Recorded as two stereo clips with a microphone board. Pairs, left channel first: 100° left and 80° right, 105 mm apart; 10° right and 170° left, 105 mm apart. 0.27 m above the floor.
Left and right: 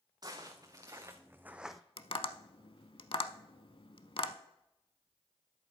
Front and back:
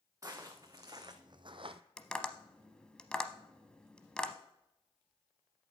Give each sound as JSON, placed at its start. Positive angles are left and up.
{"t": 0.2, "sound": "footsteps", "azimuth_deg": -130, "distance_m": 1.9}
{"t": 2.0, "sound": "tapping", "azimuth_deg": 70, "distance_m": 0.6}